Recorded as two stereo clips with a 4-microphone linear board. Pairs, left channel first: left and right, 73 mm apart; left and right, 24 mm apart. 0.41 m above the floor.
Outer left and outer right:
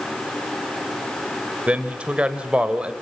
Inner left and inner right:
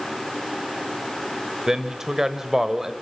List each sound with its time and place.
1.7 s a man speaking: 15° right (ahead or behind), 1.5 m